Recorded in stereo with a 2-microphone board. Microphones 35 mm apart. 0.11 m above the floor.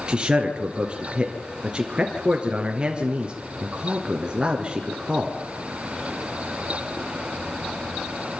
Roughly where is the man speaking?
Right.